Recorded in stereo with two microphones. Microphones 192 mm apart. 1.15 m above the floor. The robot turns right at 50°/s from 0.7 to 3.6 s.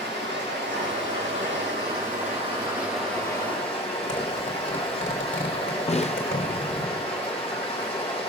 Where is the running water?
115° right, 4.5 m; by 8.3 s 30° left, 4.5 m.